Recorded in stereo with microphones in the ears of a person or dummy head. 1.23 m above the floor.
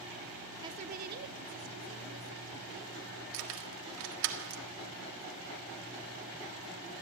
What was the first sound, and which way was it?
A woman speaking, 20° right (ahead or behind).